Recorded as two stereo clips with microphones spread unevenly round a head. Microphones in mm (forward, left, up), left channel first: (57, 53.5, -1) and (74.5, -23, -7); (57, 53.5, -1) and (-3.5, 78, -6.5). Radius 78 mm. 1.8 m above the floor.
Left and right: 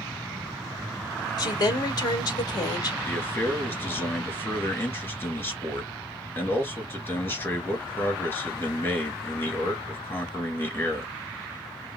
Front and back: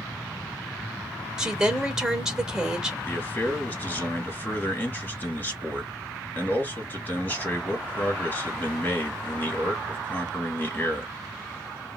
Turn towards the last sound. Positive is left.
turn(degrees=45)